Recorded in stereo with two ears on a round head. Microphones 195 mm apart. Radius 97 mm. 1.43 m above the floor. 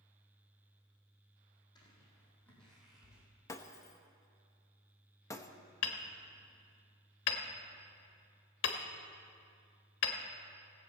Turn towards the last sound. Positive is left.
turn(degrees=55)  # may be behind; listen again after turning